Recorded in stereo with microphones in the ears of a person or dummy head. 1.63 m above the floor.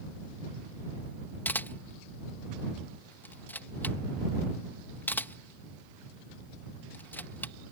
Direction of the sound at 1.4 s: 10° left (ahead or behind).